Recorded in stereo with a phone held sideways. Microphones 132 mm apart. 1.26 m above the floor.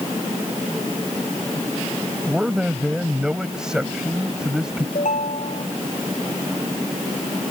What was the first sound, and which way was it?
A man speaking, 5° right (ahead or behind).